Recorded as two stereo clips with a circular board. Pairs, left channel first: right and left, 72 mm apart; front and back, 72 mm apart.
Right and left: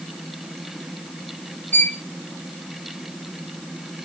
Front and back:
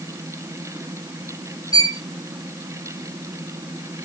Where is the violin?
25° right, 1.1 m.